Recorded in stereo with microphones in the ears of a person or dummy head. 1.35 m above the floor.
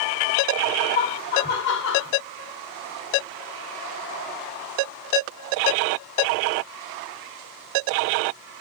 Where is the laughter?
45° left (ahead or behind), 1.5 m; by 2.1 s 75° left (ahead or behind), 0.9 m.